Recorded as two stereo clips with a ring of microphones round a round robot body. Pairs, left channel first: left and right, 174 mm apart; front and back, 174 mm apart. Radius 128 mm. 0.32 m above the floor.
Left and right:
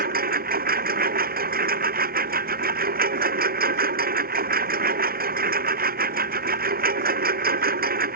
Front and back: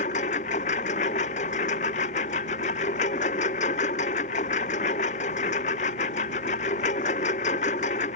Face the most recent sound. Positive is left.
turn(degrees=-60)